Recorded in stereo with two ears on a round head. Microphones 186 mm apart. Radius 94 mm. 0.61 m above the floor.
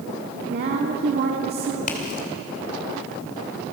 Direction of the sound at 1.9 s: 45° left (ahead or behind).